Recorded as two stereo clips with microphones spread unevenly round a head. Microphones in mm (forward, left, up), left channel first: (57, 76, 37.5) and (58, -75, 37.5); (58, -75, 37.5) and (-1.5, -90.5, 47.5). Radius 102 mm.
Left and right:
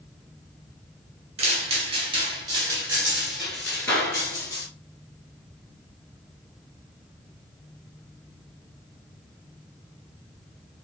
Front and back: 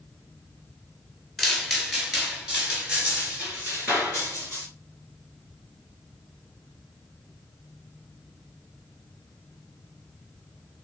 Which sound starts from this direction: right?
Footsteps, at 1.4 s.